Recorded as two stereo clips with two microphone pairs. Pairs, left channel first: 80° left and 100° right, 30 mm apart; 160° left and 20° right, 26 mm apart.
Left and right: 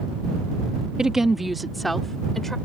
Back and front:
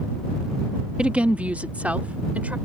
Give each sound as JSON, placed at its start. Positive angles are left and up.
{"t": 1.0, "sound": "a woman speaking", "azimuth_deg": -45}